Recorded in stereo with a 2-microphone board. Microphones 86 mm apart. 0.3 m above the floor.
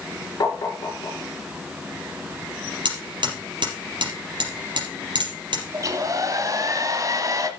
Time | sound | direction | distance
0.4 | tapping | 50° left (ahead or behind) | 4 m
2.9 | hammering | 65° right (ahead or behind) | 5 m
5.7 | a hair dryer | 40° right (ahead or behind) | 1.5 m